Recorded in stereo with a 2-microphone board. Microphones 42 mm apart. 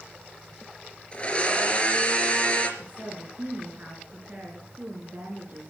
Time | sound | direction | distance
1.1 | a blender | 25° left (ahead or behind) | 3.5 m
2.8 | a woman speaking | 40° right (ahead or behind) | 4 m